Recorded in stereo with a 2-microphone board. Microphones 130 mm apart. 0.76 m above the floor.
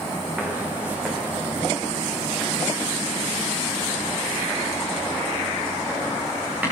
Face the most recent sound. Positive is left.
turn(degrees=-10)  # may be behind; listen again after turning